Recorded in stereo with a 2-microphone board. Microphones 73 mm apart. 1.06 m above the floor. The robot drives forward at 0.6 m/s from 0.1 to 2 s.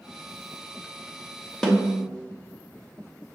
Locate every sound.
1.6 s a snare drum: 5° left (ahead or behind), 1.1 m